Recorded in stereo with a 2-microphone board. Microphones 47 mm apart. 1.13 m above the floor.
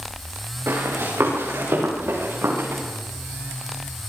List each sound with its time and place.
0.7 s running footsteps: 65° right (ahead or behind), 8.5 m; by 2.8 s 60° right (ahead or behind), 10.5 m